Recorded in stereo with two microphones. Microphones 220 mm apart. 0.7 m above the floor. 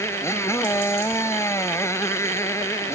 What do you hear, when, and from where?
0.0 s a motorcycle: 10° left (ahead or behind)